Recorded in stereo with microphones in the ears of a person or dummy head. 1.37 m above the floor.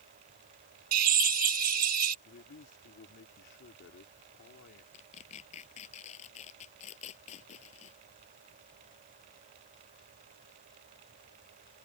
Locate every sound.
0.9 s a drill: 45° right (ahead or behind)
2.2 s a man speaking: 60° left (ahead or behind)
4.9 s tearing paper: 40° left (ahead or behind)